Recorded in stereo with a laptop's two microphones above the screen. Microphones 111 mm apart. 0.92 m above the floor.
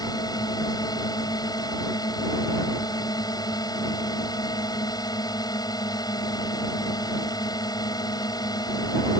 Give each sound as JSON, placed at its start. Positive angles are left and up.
{"t": 0.0, "sound": "a drone", "side_deg": 35}